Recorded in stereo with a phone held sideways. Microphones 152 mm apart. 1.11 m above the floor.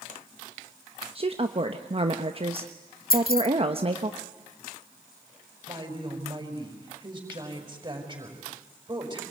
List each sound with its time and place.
1.1 s a woman speaking: 40° right (ahead or behind), 1.1 m
3.1 s keys jangling: 75° left (ahead or behind), 0.9 m
5.7 s a woman speaking: 25° right (ahead or behind), 5.5 m